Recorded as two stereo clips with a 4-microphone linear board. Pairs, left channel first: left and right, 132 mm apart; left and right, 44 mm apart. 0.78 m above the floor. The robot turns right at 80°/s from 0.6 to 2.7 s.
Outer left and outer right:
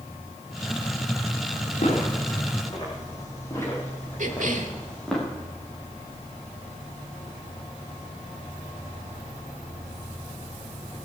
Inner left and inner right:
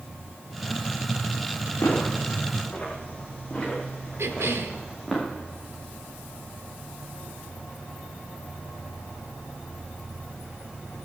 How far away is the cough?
About 1.8 m.